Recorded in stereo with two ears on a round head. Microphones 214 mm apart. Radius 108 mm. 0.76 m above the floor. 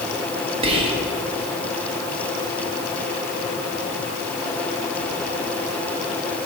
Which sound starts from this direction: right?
Whispering, at 0.6 s.